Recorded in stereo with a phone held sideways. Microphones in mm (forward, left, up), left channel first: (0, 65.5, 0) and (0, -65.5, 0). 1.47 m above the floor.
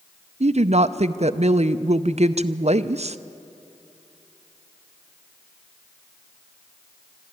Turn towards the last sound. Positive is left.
turn(degrees=-55)  # may be behind; listen again after turning